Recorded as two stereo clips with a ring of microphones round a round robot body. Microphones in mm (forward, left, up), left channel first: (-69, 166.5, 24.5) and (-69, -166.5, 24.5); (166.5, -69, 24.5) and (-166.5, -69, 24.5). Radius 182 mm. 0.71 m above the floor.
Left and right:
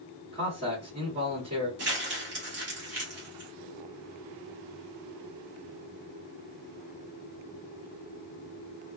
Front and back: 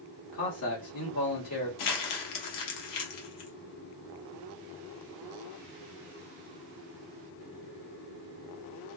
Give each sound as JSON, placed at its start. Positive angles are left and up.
{"t": 0.3, "sound": "a man speaking", "azimuth_deg": -30, "distance_m": 1.8}
{"t": 1.8, "sound": "crumpling", "azimuth_deg": -30, "distance_m": 0.9}